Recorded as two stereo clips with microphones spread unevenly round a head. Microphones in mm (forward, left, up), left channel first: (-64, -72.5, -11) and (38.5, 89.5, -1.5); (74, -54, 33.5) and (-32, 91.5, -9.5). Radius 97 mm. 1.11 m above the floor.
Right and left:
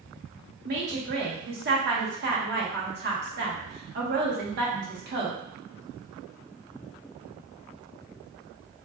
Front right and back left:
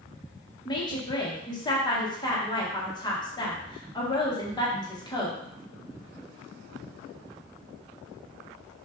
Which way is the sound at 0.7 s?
15° left.